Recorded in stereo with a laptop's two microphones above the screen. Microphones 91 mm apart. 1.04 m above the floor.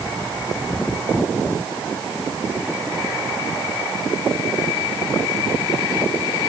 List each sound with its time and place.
Only background noise.